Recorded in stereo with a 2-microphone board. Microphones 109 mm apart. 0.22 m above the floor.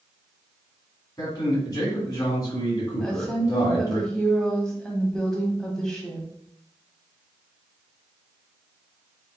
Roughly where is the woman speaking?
Centre.